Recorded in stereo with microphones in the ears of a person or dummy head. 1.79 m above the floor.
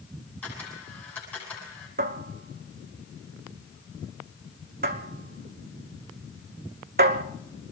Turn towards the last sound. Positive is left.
turn(degrees=-45)  # may be behind; listen again after turning